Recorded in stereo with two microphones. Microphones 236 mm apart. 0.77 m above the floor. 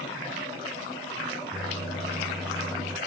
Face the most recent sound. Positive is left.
turn(degrees=5)  # may be behind; listen again after turning